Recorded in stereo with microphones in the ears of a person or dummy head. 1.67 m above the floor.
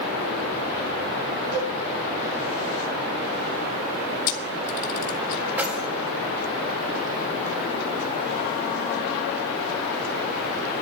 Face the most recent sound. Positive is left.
turn(degrees=-15)  # may be behind; listen again after turning